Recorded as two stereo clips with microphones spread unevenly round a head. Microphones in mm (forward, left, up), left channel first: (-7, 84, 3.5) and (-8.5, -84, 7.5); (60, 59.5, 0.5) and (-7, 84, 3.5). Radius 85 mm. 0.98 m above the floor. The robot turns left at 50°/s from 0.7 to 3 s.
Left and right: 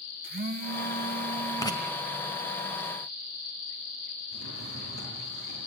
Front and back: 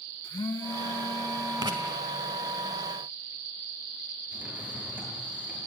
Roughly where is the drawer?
Left.